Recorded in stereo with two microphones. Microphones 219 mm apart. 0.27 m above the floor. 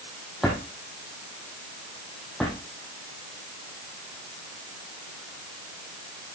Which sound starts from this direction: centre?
A drawer, at 0.4 s.